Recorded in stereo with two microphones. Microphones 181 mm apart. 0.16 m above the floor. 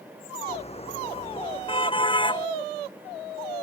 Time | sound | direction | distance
0.5 | a car horn | 35° left (ahead or behind) | ?